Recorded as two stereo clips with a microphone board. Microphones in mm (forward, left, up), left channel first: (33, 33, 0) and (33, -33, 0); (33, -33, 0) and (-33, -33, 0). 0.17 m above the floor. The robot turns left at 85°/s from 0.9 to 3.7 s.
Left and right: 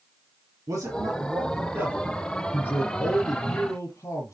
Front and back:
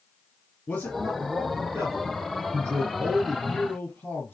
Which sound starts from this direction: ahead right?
A man speaking, at 0.7 s.